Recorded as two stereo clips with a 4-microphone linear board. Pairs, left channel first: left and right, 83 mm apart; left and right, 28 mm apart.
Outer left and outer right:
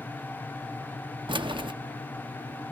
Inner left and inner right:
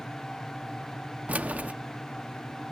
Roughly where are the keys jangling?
Right.